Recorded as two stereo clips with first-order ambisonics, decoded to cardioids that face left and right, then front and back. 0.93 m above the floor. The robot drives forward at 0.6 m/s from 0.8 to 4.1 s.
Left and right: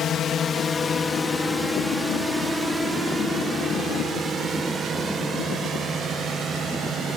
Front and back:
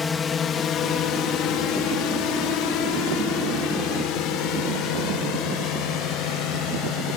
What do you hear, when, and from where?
0.0 s a drone: 60° left; by 7.2 s 25° right